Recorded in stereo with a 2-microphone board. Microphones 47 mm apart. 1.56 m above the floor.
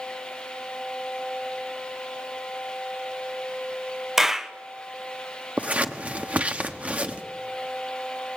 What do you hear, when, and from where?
4.2 s a clap: 10° right (ahead or behind), 1.0 m
5.6 s scissors: 30° right (ahead or behind), 1.4 m